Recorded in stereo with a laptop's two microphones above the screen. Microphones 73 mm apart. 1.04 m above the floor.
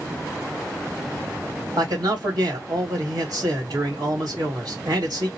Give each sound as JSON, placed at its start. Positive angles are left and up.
{"t": 1.8, "sound": "a man speaking", "side_deg": -65, "distance_m": 2.0}